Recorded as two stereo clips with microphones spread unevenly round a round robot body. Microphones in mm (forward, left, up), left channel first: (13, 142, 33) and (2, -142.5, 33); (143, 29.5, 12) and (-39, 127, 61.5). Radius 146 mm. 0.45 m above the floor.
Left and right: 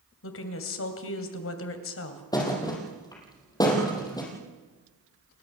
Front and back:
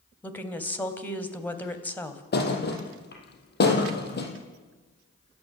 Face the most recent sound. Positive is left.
turn(degrees=10)